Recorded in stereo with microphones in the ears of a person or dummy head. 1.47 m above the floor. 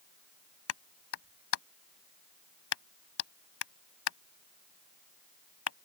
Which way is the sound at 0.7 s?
85° left.